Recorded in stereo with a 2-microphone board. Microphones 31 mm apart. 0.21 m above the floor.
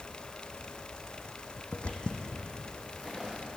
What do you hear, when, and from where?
1.7 s footsteps: 50° left (ahead or behind), 0.6 m; by 3.4 s centre (ahead or behind), 2 m